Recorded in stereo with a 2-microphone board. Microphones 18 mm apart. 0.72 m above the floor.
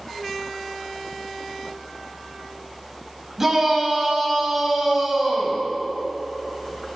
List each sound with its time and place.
3.4 s a shout: 20° right (ahead or behind), 3.5 m